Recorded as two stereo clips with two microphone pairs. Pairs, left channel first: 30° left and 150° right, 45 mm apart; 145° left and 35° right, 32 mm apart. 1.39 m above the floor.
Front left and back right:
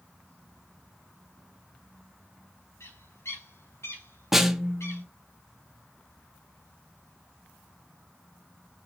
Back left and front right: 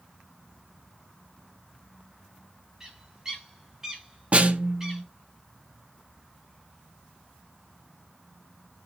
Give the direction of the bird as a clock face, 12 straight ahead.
11 o'clock.